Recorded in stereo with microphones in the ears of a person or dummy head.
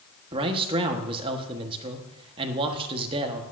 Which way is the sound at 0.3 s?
30° right (ahead or behind).